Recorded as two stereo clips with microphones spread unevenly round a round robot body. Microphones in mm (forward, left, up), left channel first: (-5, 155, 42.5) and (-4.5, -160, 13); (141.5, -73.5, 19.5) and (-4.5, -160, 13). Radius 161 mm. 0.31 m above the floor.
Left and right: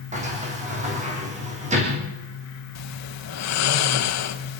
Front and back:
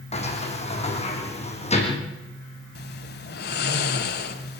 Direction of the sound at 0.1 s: 20° right.